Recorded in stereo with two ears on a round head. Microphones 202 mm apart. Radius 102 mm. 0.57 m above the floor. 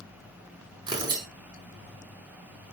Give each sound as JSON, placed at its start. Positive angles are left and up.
{"t": 0.9, "sound": "tearing paper", "side_deg": -20, "distance_m": 5.0}